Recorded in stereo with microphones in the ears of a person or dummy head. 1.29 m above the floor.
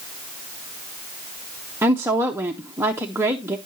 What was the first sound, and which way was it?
A woman speaking, 10° right (ahead or behind).